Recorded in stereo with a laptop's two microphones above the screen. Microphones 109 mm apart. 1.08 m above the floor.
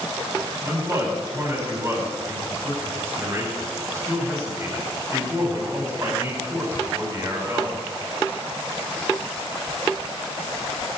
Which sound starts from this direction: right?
A man speaking, at 0.6 s.